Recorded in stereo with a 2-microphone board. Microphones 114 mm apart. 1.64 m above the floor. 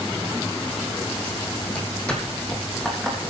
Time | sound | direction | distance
1.7 | footsteps | 10° left (ahead or behind) | 3 m